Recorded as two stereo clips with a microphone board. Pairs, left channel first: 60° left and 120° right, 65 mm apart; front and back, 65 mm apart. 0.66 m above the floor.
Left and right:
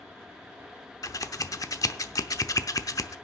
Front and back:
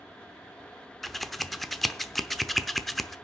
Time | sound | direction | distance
1.0 | scissors | 90° left | 0.7 m